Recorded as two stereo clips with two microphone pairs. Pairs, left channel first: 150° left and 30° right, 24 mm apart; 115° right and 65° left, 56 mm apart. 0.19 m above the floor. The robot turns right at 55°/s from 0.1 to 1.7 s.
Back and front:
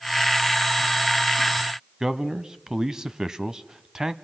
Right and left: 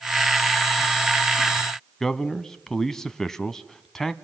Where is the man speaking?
45° right, 1.0 m.